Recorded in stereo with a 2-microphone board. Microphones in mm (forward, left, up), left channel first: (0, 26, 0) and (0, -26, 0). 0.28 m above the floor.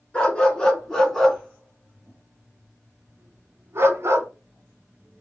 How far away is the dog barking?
About 1.8 m.